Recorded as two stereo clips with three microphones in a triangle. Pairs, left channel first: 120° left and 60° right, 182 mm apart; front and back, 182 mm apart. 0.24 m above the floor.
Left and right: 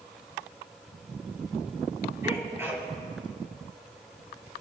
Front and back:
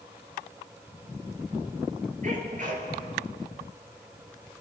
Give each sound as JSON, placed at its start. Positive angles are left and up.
{"t": 2.2, "sound": "a sneeze", "azimuth_deg": -135, "distance_m": 5.5}